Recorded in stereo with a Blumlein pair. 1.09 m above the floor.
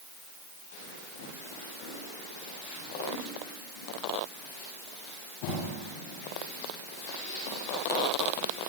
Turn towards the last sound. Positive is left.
No sound to turn to.